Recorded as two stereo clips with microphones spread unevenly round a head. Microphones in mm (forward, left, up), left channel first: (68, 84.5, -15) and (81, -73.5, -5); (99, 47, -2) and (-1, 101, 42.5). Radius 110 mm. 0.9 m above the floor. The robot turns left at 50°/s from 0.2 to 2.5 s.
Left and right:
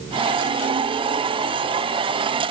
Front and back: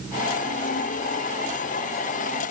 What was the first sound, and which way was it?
Only background noise.